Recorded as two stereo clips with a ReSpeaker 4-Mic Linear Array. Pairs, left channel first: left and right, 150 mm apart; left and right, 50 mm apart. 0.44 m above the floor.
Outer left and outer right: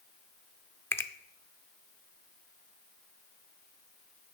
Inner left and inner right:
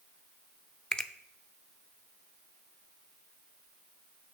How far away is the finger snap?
About 0.5 m.